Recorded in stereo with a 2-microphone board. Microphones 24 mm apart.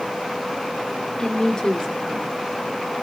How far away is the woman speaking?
About 3 m.